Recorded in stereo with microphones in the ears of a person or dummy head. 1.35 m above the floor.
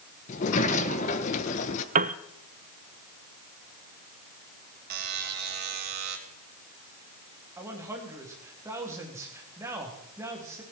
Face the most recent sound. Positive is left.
turn(degrees=-15)  # may be behind; listen again after turning